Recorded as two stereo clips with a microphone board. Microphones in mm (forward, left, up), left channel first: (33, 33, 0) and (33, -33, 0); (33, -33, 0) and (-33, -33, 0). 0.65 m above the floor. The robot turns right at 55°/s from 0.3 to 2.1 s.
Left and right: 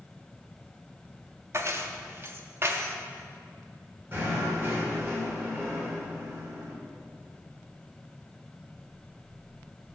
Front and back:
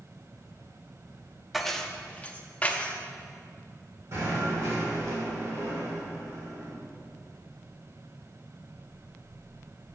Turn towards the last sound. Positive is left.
turn(degrees=-140)